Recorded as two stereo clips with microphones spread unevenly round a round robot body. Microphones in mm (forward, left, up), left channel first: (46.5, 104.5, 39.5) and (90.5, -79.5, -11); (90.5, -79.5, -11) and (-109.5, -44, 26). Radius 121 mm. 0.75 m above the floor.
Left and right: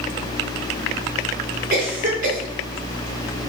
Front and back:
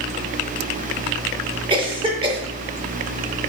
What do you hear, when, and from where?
1.7 s a cough: 120° right, 3 m